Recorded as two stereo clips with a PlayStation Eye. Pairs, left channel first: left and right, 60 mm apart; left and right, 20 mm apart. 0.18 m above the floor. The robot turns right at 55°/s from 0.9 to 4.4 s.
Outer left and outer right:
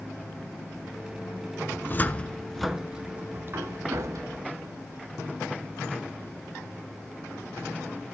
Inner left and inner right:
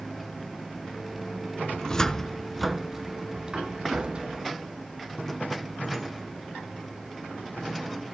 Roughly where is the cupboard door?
Left.